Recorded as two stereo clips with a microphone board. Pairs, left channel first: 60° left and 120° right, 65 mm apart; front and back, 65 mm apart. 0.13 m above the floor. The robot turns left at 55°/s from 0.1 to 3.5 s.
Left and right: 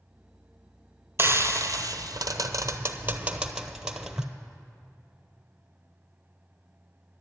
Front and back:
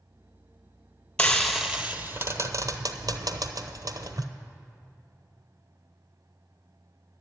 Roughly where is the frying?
Right.